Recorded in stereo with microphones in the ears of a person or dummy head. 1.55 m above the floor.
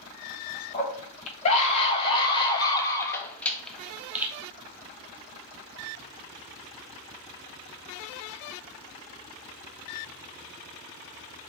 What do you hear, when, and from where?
0.7 s a scream: 40° left (ahead or behind), 2.5 m; by 4.3 s 10° right (ahead or behind), 1.5 m